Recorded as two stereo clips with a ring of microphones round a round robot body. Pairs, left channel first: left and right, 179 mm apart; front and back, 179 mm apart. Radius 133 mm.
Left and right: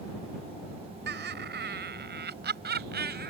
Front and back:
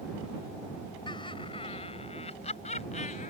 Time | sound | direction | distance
1.1 | laughter | 70° right | ?